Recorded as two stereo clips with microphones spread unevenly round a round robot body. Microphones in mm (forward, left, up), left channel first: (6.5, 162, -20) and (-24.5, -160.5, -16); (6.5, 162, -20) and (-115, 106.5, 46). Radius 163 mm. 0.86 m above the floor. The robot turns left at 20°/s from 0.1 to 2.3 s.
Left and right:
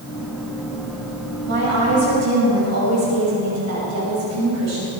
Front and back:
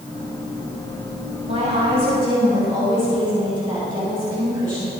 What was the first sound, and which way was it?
A woman speaking, 35° right.